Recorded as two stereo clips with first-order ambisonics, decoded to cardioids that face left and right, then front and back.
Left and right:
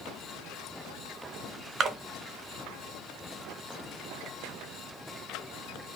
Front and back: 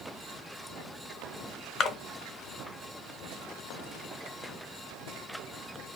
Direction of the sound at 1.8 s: 50° right.